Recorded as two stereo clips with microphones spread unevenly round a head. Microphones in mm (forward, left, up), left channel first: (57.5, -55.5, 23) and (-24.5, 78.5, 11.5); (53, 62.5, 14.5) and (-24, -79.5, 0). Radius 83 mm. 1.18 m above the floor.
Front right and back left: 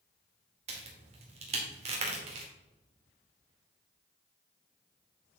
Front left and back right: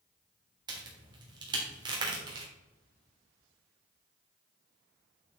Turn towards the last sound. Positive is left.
turn(degrees=175)